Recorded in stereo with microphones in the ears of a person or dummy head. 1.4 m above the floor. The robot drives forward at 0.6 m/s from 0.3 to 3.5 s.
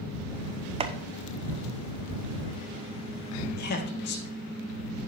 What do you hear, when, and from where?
0.8 s chopping: 25° right (ahead or behind), 0.7 m; by 0.9 s 20° right (ahead or behind), 0.8 m
3.5 s a man speaking: 55° left (ahead or behind), 1.7 m